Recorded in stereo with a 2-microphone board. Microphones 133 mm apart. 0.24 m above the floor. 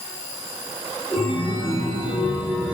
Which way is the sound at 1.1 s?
10° right (ahead or behind).